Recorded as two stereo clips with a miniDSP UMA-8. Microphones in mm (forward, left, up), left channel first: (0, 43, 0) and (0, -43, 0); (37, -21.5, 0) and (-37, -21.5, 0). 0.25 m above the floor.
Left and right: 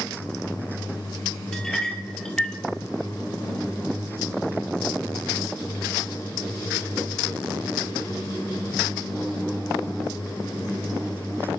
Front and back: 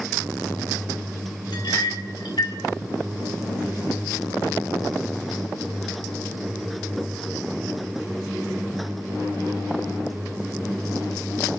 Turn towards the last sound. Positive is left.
turn(degrees=5)